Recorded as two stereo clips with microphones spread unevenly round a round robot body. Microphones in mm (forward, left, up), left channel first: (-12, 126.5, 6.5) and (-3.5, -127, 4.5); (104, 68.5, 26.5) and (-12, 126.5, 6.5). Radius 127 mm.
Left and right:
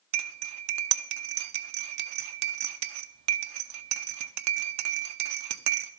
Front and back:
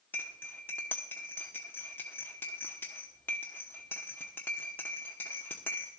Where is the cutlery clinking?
110° right, 0.7 m.